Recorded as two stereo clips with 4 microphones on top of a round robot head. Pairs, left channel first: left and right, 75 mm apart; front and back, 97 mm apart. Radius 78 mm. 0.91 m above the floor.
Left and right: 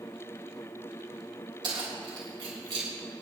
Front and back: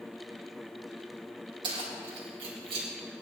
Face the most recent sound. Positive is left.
turn(degrees=-130)